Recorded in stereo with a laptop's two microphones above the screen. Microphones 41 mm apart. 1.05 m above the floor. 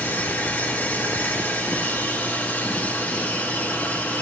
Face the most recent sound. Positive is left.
turn(degrees=50)  # may be behind; listen again after turning